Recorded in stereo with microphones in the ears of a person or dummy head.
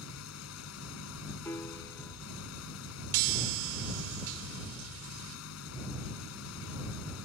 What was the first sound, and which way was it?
An engine running, 85° left.